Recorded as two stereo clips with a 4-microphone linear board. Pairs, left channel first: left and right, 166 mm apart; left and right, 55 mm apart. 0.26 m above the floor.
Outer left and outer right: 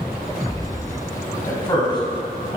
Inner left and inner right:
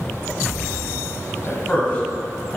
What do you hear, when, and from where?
1.5 s a man speaking: 25° left (ahead or behind), 1.5 m; by 2.6 s 30° left (ahead or behind), 2 m